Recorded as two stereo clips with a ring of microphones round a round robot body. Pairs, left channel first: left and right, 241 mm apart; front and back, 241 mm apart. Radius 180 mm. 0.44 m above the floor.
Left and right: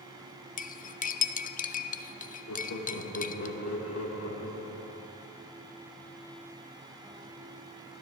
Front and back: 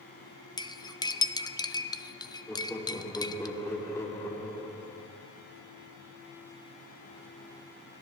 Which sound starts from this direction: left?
Laughter, at 2.5 s.